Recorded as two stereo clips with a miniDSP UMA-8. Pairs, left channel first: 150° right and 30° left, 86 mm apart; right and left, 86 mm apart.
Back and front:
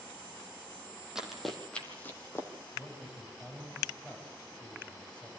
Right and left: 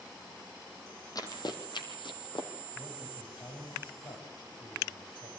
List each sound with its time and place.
1.1 s running footsteps: 55° right, 2.5 m; by 2.5 s 95° right, 3 m
2.7 s a man speaking: 70° right, 6.5 m